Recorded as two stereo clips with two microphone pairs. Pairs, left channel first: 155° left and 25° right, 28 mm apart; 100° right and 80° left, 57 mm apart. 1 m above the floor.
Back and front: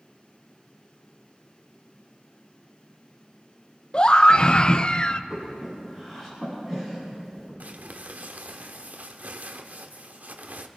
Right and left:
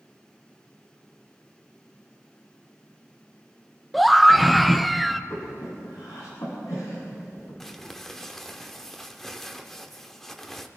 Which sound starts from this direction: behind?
A scream, at 3.9 s.